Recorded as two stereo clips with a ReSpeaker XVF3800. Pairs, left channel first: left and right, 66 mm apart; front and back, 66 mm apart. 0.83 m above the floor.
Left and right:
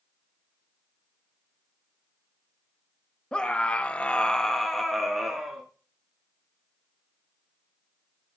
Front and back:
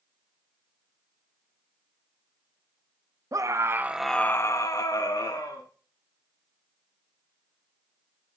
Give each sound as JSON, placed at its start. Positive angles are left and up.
{"t": 3.3, "sound": "a scream", "azimuth_deg": 165, "distance_m": 0.9}